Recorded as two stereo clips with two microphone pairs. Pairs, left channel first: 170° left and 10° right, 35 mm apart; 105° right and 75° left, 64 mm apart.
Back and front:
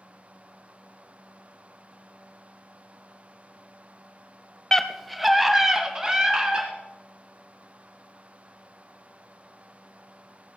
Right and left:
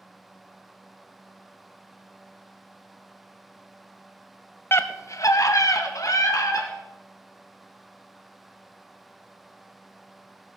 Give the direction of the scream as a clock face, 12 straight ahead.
4 o'clock.